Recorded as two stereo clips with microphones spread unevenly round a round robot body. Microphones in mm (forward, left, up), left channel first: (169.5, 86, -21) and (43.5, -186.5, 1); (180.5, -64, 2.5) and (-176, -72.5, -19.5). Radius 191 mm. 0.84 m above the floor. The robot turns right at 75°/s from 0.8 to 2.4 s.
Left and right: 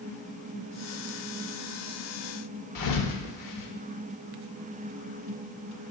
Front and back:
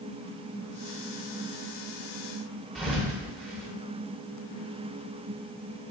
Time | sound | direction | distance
2.8 | a thud | 90° left | 0.7 m